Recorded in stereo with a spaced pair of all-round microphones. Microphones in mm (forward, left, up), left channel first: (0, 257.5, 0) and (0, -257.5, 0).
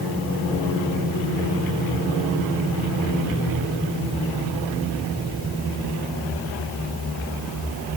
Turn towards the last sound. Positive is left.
No sound to turn to.